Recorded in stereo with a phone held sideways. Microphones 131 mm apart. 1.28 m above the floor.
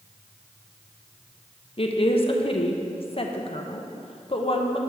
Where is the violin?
I don't hear a violin.